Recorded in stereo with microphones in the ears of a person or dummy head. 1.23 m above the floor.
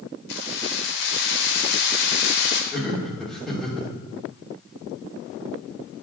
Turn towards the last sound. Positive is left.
turn(degrees=-5)  # may be behind; listen again after turning